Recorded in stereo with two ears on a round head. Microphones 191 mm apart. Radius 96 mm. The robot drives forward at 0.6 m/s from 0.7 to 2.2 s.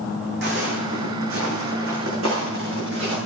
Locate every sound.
0.4 s footsteps: 50° right (ahead or behind), 3 m; by 3.2 s 65° right (ahead or behind), 5 m